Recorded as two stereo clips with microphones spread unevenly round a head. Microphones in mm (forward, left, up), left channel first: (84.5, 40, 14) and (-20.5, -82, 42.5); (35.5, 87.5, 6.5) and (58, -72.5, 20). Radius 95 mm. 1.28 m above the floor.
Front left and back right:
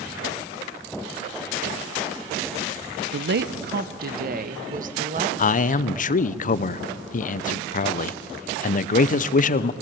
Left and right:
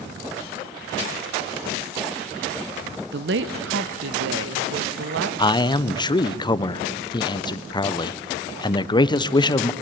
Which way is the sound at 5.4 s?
40° left.